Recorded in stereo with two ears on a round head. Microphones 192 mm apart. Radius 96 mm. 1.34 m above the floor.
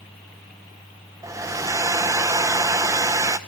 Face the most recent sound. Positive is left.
turn(degrees=-15)  # may be behind; listen again after turning